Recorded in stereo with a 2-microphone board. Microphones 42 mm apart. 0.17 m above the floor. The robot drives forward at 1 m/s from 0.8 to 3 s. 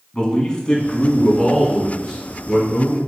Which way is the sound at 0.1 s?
20° left (ahead or behind).